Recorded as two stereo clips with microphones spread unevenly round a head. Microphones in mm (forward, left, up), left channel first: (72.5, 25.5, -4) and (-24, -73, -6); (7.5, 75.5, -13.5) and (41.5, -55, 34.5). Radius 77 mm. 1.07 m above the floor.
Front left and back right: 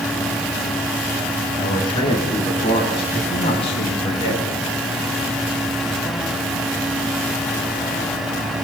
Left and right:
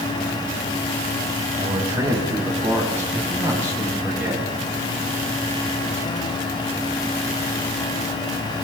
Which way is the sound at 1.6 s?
10° right.